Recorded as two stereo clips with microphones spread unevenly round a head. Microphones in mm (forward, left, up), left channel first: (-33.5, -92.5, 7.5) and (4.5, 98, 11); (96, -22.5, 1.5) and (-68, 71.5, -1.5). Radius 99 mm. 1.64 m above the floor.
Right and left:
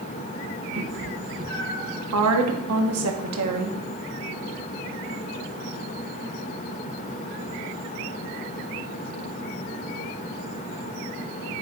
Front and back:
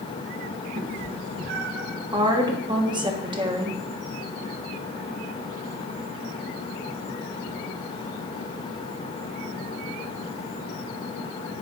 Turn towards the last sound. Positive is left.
turn(degrees=80)